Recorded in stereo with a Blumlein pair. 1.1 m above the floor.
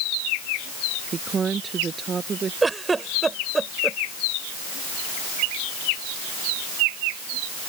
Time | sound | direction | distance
1.1 | a woman speaking | 20° right | ?
2.6 | a giggle | 15° right | ?